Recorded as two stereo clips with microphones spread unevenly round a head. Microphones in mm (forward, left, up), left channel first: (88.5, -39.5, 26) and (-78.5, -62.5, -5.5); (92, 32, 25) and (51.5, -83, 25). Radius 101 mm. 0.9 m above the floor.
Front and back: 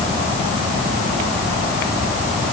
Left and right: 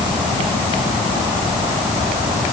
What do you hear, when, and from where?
Only background noise.